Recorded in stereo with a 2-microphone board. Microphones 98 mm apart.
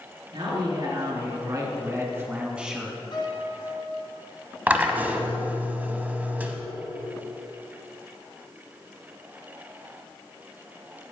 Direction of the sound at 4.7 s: 15° right (ahead or behind).